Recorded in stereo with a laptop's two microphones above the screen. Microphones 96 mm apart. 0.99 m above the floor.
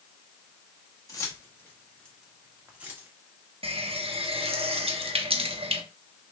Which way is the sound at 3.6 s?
85° right.